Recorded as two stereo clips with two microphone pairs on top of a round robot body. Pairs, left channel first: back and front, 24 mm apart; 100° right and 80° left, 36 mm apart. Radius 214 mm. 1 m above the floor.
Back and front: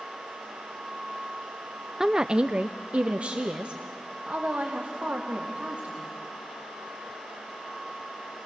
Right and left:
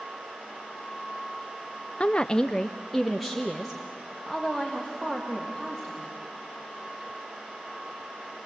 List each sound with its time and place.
2.0 s a woman speaking: 55° right, 0.7 m; by 6.1 s 5° left, 3 m